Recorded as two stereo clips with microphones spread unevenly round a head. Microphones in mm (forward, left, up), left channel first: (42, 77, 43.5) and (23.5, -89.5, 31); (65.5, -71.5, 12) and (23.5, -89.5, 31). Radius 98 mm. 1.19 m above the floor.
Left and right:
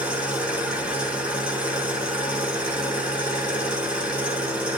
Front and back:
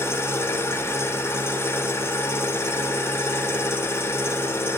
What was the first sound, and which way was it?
An engine running, 15° right.